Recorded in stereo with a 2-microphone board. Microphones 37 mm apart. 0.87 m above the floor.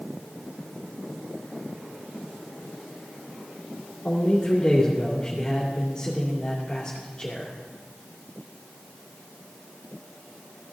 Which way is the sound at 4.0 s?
25° left (ahead or behind).